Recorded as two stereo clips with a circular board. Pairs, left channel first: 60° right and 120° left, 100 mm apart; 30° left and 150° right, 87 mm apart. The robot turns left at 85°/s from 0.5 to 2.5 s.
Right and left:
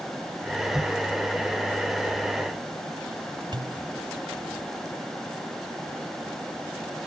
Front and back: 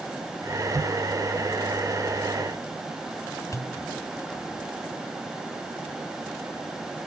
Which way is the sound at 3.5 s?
80° left.